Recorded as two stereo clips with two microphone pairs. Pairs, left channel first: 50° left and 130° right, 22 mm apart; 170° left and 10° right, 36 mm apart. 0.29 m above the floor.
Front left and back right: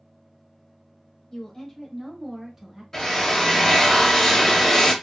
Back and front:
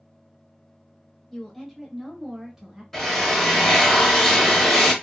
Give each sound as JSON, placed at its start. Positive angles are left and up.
{"t": 1.3, "sound": "a woman speaking", "azimuth_deg": 85, "distance_m": 1.0}
{"t": 2.9, "sound": "a drill", "azimuth_deg": 95, "distance_m": 0.8}